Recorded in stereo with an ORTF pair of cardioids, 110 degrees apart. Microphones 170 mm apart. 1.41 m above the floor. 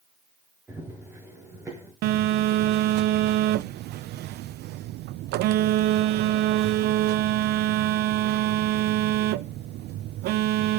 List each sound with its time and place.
0.7 s running footsteps: 15° right, 6.5 m
2.0 s a phone buzzing: 70° right, 0.7 m